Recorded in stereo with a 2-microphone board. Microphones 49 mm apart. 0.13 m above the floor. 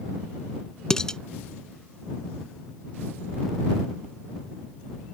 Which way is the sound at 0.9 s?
15° left (ahead or behind).